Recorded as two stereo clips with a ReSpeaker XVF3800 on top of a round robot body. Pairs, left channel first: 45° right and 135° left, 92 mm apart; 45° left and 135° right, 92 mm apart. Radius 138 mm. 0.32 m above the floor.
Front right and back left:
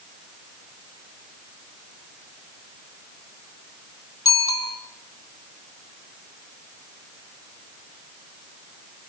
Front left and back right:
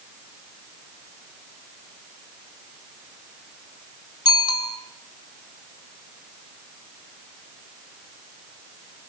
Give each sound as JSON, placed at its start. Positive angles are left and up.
{"t": 4.2, "sound": "a bicycle bell", "azimuth_deg": 5, "distance_m": 3.5}